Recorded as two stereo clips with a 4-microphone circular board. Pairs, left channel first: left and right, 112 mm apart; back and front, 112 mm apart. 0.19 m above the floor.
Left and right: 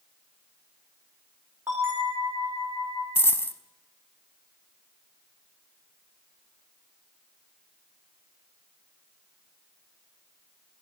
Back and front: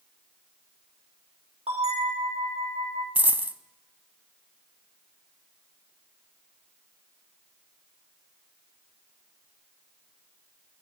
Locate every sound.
1.7 s a bell: 25° right, 6 m
3.1 s a dropped coin: 55° left, 0.5 m